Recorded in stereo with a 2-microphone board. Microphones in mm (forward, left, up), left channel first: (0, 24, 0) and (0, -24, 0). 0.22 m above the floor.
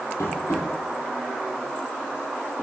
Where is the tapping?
75° left (ahead or behind), 3.5 m.